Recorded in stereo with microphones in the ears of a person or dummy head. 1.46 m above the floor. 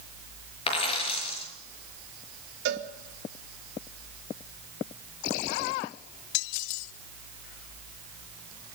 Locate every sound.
0.7 s a dropped coin: 35° left (ahead or behind), 5.5 m
2.6 s a cowbell: 70° right (ahead or behind), 2.5 m